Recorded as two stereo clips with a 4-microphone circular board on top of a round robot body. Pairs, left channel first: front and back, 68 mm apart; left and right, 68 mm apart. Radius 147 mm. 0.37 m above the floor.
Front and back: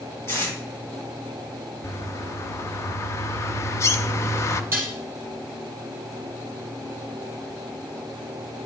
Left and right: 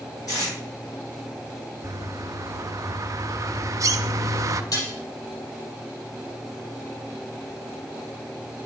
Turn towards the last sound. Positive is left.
turn(degrees=120)